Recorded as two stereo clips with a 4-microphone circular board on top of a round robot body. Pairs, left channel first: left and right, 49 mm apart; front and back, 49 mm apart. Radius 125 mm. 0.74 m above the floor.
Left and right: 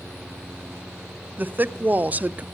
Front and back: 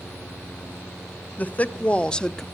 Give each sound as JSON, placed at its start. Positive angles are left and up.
{"t": 1.4, "sound": "a woman speaking", "azimuth_deg": -50, "distance_m": 1.1}